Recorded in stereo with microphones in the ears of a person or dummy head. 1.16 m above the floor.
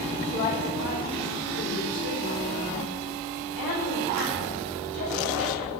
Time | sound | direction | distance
0.3 | a woman speaking | 35° left (ahead or behind) | 3.5 m